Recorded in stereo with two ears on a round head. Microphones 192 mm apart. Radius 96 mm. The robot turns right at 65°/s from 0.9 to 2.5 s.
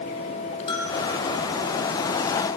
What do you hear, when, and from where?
0.7 s a bell: 25° left (ahead or behind), 4.5 m; by 1.0 s 30° left (ahead or behind), 4.5 m